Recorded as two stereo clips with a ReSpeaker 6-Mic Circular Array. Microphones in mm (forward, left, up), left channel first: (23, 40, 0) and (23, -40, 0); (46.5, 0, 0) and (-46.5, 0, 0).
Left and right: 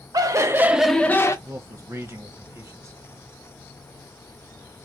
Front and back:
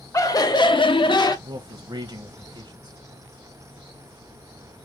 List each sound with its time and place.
0.1 s laughter: 55° right, 0.9 m; by 1.4 s 40° left, 0.7 m
1.4 s a man speaking: 145° right, 0.7 m